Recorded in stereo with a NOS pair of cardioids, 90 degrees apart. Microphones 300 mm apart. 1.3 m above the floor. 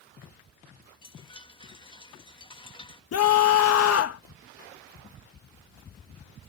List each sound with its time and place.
1.0 s a chime: 15° left
3.1 s a scream: 55° left